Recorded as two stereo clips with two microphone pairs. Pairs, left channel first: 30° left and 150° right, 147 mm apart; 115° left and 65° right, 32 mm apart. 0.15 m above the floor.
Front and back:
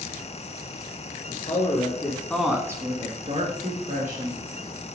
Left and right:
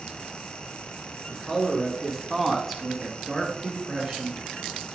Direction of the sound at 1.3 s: 25° left.